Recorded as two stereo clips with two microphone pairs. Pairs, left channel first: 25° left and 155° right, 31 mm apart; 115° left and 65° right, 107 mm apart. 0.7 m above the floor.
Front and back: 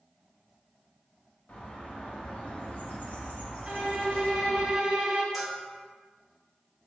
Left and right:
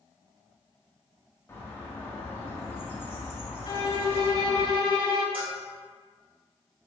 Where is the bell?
65° right, 1.3 m.